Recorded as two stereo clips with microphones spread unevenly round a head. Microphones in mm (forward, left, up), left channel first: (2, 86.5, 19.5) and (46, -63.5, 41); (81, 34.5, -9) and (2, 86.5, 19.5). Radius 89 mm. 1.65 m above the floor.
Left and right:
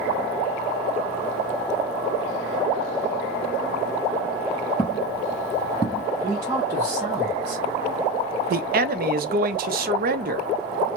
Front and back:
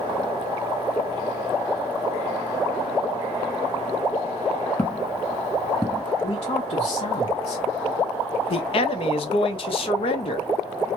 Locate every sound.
4.8 s footsteps: 50° left, 2 m; by 6.0 s 165° left, 1.8 m
6.2 s a man speaking: 5° right, 1.0 m
8.5 s a man speaking: 45° right, 0.6 m